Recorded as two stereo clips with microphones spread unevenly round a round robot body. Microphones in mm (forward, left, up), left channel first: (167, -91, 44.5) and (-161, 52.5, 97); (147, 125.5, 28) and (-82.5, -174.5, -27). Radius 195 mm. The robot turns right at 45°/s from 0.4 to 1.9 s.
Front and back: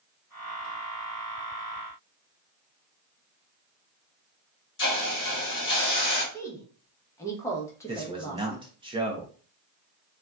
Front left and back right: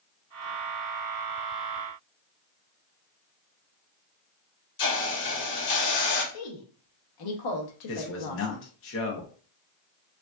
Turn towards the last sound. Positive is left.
turn(degrees=80)